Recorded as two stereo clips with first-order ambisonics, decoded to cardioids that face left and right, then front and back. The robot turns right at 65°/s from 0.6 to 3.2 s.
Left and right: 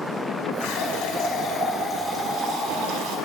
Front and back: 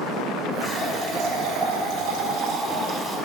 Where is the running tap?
95° left, 5 m; by 3.2 s 100° right, 5 m.